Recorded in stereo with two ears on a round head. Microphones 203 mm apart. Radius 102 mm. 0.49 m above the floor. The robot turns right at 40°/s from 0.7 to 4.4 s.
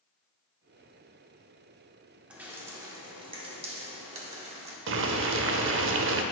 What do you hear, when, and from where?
2.3 s dripping: 5° right (ahead or behind), 1.1 m; by 4.8 s 30° right (ahead or behind), 1.1 m
4.9 s boiling: 55° right (ahead or behind), 0.6 m